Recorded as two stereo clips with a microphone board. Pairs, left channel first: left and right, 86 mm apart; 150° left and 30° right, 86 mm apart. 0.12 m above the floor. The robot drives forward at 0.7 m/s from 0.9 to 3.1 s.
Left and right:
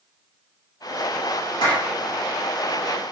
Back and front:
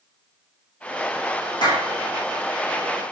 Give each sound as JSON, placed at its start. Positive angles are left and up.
{"t": 1.6, "sound": "a clap", "azimuth_deg": 120, "distance_m": 7.0}